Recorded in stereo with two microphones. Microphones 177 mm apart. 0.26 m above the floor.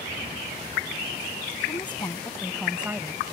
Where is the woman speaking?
30° left (ahead or behind); by 3.3 s 30° right (ahead or behind).